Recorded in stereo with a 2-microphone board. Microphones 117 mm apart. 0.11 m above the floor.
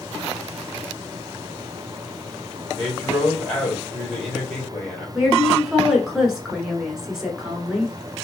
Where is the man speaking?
10° left (ahead or behind), 2.5 m.